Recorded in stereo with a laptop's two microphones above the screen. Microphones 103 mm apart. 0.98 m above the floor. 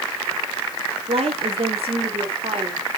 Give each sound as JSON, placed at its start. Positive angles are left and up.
{"t": 1.1, "sound": "a woman speaking", "side_deg": -75, "distance_m": 2.5}